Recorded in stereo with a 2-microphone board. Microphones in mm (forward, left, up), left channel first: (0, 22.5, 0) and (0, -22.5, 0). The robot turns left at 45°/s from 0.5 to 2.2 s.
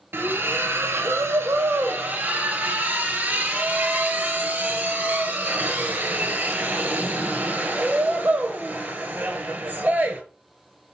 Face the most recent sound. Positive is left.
turn(degrees=-135)